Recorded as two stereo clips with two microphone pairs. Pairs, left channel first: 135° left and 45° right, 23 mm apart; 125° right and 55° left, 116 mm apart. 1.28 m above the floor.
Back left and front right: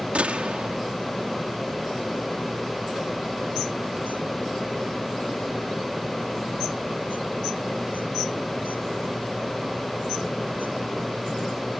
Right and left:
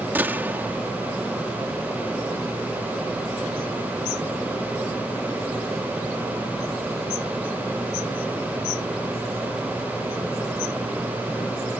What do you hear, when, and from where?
0.1 s a gunshot: 15° right